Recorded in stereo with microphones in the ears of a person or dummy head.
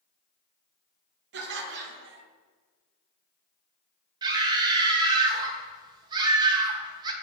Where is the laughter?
55° right (ahead or behind), 0.7 m.